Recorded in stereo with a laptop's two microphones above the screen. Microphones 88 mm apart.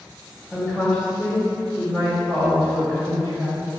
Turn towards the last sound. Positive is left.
turn(degrees=25)  # may be behind; listen again after turning